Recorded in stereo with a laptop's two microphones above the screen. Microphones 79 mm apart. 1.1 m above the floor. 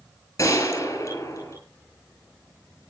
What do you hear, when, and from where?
0.4 s a gunshot: 40° left (ahead or behind), 10 m